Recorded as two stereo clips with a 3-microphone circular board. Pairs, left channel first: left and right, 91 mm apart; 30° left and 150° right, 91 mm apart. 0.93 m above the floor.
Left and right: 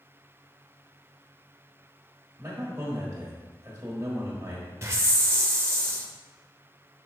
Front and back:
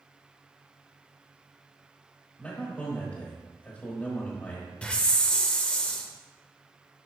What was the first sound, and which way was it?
A man speaking, 35° right.